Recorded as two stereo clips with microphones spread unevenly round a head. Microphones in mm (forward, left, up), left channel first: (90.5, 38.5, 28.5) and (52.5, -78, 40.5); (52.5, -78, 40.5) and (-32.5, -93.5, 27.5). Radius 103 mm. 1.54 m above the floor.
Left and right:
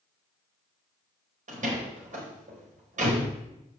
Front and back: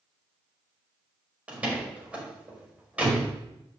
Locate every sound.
1.5 s a door slam: 95° right, 5 m